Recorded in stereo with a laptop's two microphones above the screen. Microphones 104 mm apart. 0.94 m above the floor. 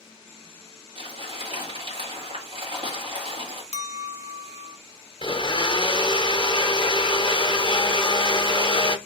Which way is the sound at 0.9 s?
50° right (ahead or behind).